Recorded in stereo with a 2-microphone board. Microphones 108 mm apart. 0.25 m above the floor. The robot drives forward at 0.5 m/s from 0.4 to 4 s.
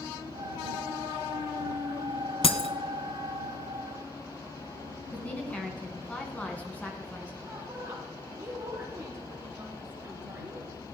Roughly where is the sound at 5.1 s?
Centre.